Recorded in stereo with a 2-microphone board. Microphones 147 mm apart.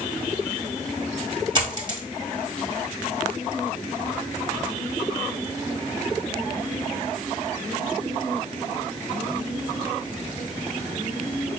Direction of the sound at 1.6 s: 35° right (ahead or behind).